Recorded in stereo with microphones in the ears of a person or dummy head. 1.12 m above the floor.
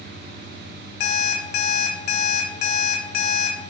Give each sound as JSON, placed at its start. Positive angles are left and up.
{"t": 1.0, "sound": "an alarm clock", "side_deg": 55, "distance_m": 0.5}